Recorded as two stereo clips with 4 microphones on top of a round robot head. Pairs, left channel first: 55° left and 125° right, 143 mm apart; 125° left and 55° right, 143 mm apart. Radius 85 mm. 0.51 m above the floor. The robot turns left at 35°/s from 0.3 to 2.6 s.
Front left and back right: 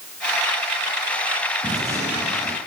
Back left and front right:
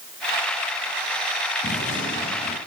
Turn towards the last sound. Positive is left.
turn(degrees=135)